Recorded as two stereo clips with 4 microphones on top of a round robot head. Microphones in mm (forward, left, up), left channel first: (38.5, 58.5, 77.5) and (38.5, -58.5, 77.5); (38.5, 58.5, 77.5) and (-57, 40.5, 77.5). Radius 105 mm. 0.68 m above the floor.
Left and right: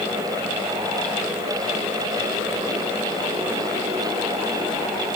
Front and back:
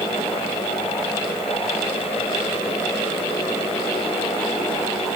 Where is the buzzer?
I don't hear a buzzer.